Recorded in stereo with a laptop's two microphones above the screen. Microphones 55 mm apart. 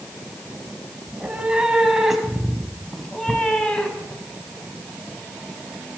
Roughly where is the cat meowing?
Centre.